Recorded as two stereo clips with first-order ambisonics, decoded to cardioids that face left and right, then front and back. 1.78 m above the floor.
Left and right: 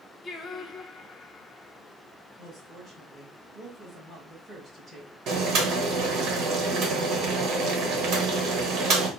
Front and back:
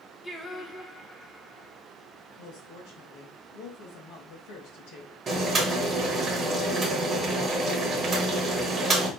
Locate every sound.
0.2 s singing: 65° left, 0.8 m
2.4 s a woman speaking: 10° right, 3.5 m
5.3 s boiling: 115° right, 1.1 m